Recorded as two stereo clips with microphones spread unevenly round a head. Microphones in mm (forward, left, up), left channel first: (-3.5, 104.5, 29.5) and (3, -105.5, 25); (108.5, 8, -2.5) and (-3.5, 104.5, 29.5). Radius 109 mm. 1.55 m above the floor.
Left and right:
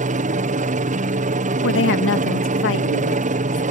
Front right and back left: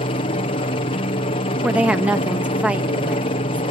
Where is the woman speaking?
60° left.